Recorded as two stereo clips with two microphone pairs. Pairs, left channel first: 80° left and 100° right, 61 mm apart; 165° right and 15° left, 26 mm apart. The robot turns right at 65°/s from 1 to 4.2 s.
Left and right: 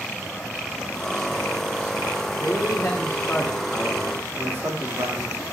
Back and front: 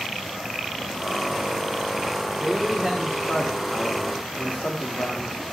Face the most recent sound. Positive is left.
turn(degrees=-155)